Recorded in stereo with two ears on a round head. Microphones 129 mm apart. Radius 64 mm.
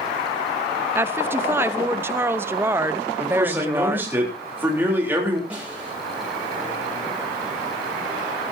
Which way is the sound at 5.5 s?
10° right (ahead or behind).